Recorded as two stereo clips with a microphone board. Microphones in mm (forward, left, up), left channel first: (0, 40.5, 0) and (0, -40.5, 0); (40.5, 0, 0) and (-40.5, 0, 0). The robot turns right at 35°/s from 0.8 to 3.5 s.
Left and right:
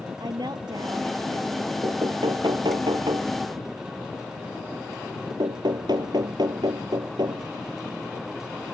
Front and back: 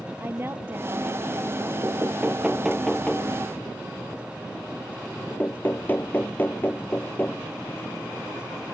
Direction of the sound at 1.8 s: 125° right.